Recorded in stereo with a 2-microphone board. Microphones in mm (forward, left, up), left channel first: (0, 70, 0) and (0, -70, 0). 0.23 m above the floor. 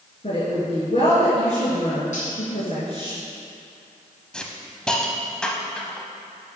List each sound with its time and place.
0.2 s a woman speaking: 50° left (ahead or behind), 2.5 m
2.1 s cutlery clinking: 60° left (ahead or behind), 3 m
4.3 s a hiss: 5° left (ahead or behind), 0.9 m